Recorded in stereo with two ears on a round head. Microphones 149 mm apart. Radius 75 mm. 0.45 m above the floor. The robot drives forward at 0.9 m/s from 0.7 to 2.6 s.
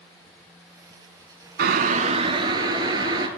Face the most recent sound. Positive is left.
turn(degrees=-25)  # may be behind; listen again after turning